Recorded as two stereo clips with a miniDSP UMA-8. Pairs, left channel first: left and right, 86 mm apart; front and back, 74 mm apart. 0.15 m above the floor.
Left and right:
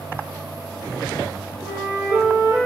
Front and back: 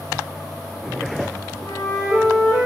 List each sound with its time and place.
1.6 s a flute: 30° right, 2.5 m